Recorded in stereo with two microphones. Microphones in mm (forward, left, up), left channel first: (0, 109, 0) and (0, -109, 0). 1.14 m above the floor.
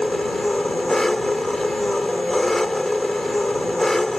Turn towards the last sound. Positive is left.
turn(degrees=0)  # may be behind; listen again after turning